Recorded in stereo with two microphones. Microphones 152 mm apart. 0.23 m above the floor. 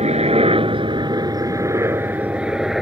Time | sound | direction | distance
0.0 | a helicopter | 45° right (ahead or behind) | ?